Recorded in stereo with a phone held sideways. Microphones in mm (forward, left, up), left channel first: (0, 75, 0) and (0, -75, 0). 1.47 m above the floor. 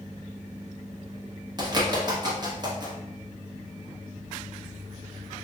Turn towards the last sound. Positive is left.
turn(degrees=-30)  # may be behind; listen again after turning